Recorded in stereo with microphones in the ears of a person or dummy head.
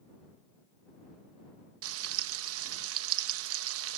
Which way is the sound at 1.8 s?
85° right.